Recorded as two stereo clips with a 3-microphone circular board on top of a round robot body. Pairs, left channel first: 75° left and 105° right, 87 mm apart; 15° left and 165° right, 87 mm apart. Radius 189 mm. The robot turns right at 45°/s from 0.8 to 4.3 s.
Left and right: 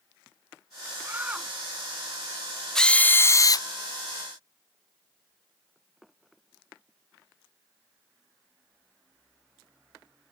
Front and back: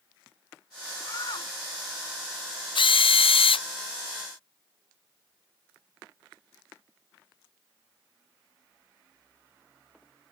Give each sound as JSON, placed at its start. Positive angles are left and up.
{"t": 1.0, "sound": "a shout", "azimuth_deg": -40}
{"t": 2.8, "sound": "a drill", "azimuth_deg": -10}